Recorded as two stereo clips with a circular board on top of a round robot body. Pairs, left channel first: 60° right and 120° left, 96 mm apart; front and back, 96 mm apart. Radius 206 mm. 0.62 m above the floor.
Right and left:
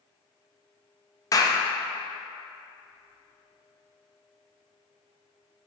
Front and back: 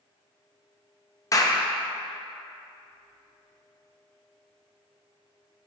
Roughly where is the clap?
Ahead right.